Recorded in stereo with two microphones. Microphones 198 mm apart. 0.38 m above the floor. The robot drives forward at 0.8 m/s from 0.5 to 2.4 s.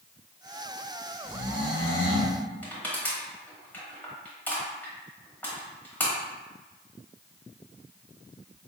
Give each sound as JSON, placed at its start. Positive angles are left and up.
{"t": 1.2, "sound": "snoring", "side_deg": 45, "distance_m": 1.3}
{"t": 2.6, "sound": "crushing", "side_deg": 10, "distance_m": 1.3}